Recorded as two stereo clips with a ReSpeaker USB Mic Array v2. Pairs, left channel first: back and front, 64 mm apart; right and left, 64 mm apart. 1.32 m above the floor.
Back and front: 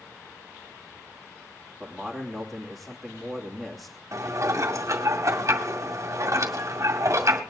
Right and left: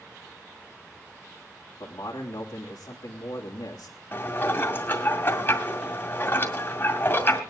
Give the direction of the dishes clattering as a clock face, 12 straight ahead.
1 o'clock.